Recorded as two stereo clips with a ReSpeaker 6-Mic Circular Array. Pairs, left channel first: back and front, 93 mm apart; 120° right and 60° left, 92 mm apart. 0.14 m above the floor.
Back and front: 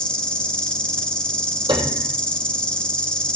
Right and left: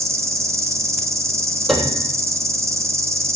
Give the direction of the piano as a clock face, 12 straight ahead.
1 o'clock.